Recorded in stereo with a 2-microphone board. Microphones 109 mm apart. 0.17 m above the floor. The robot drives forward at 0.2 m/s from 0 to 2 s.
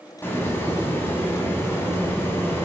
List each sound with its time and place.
0.2 s a hiss: 20° left (ahead or behind), 1.0 m